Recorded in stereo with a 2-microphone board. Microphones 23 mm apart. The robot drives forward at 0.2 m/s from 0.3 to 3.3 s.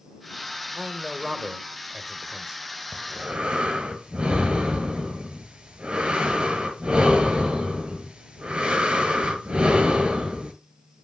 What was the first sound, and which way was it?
A man speaking, 25° right (ahead or behind).